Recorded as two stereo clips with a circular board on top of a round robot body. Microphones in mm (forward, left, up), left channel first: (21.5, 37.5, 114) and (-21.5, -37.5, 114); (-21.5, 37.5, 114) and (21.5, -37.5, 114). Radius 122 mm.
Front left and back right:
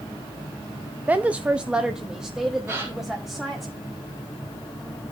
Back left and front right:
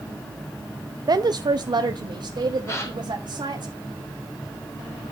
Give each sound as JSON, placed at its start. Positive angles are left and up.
{"t": 1.1, "sound": "a woman speaking", "azimuth_deg": -55, "distance_m": 0.8}
{"t": 2.7, "sound": "a gasp", "azimuth_deg": 180, "distance_m": 3.5}